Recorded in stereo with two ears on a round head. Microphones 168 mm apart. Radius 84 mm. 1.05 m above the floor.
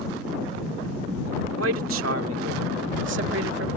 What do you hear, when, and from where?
1.6 s a man speaking: 85° right; by 3.7 s 65° right (ahead or behind)